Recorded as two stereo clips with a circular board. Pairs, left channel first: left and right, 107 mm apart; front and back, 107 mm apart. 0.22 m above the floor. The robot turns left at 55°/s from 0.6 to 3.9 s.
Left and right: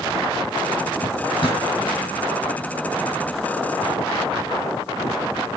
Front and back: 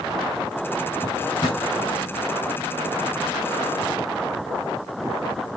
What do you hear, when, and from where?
1.0 s a drawer: 75° left, 5 m; by 1.6 s 40° left, 5 m